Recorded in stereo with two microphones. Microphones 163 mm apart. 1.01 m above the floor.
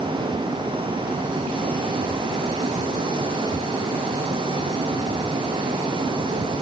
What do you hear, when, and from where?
Only background noise.